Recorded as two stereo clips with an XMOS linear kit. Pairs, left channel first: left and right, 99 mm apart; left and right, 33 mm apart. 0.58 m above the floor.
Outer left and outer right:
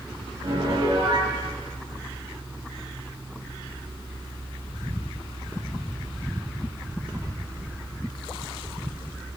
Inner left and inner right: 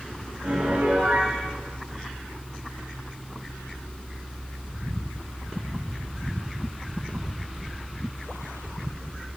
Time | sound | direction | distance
0.4 | a piano | 60° right (ahead or behind) | 7.5 m